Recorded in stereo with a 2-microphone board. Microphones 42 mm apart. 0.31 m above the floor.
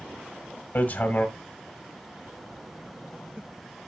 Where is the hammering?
50° left (ahead or behind), 1.6 m.